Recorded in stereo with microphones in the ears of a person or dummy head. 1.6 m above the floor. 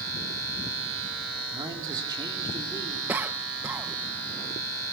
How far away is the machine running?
About 7.5 m.